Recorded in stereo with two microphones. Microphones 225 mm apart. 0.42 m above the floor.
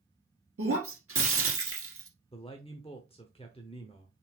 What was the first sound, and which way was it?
Breaking glass, 80° right.